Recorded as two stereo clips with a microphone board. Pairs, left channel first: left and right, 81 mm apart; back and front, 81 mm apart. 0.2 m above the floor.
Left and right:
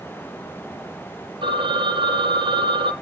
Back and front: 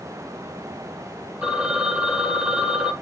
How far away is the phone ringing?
About 3.5 m.